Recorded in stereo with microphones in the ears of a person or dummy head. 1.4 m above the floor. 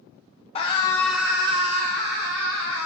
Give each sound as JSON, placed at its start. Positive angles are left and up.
{"t": 0.6, "sound": "a scream", "side_deg": 30, "distance_m": 0.6}